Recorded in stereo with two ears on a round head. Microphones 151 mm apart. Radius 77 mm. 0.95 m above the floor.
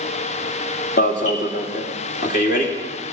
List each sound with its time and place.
1.0 s an alarm: 50° left (ahead or behind), 2.5 m